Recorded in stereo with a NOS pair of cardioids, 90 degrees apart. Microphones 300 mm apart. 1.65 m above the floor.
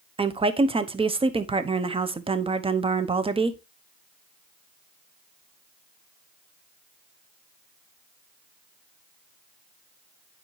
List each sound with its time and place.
0.2 s a woman speaking: 20° right, 1.0 m